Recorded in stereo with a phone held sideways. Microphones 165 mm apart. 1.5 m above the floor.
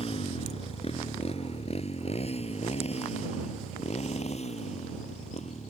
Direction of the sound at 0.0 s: 35° left (ahead or behind).